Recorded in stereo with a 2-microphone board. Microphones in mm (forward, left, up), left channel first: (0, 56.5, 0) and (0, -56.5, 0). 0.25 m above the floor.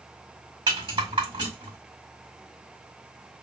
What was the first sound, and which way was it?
A rattle, 40° right (ahead or behind).